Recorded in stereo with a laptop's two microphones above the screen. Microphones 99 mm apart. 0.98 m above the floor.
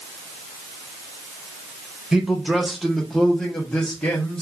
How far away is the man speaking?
About 0.8 m.